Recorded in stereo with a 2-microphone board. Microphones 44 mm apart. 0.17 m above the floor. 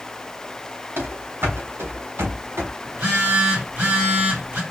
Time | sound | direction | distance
1.0 | running footsteps | 60° right (ahead or behind) | 1.7 m
2.9 | a phone buzzing | 40° right (ahead or behind) | 3 m